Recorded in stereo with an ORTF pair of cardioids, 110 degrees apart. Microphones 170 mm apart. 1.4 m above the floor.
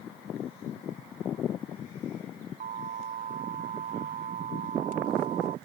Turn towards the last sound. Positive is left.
turn(degrees=-50)